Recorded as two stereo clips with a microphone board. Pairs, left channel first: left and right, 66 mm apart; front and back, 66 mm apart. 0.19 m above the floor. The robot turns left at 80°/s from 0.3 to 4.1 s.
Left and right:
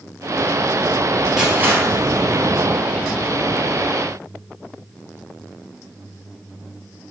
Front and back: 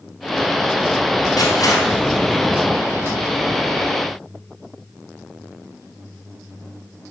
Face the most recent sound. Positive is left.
turn(degrees=135)